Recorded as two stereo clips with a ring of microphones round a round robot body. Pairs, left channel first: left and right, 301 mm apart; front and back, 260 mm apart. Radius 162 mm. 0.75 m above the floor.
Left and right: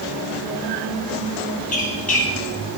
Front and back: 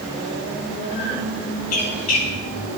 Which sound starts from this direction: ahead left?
A squeak, at 1.7 s.